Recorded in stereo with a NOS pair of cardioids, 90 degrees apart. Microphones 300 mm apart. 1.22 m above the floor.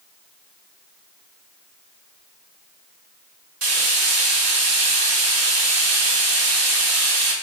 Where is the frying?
60° right, 1.7 m.